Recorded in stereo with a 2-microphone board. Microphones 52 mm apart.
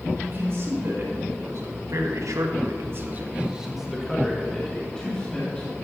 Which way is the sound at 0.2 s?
55° right (ahead or behind).